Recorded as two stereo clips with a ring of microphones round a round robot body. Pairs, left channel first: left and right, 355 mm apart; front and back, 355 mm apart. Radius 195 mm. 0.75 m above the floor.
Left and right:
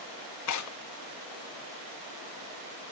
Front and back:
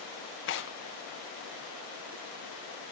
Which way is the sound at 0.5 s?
55° left.